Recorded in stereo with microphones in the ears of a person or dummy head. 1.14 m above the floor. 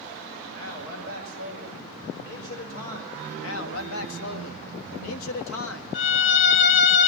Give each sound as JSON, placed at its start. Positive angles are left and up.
{"t": 0.5, "sound": "a man speaking", "side_deg": 70, "distance_m": 5.5}
{"t": 3.4, "sound": "a man speaking", "side_deg": 80, "distance_m": 1.5}
{"t": 5.9, "sound": "a violin", "side_deg": 40, "distance_m": 1.2}